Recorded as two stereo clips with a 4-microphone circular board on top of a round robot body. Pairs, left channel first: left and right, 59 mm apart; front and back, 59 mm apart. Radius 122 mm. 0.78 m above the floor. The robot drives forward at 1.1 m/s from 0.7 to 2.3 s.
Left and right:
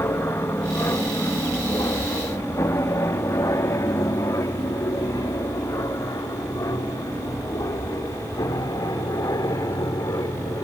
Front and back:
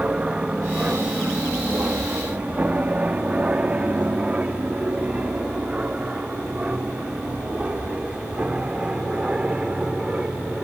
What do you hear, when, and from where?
0.0 s an aircraft: 115° left; by 10.6 s 105° left